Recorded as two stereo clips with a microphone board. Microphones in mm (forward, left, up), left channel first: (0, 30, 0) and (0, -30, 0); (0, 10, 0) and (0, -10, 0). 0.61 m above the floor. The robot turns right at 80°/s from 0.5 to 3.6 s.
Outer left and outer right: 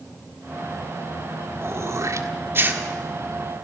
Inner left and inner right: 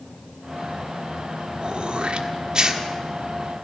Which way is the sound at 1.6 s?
40° right (ahead or behind).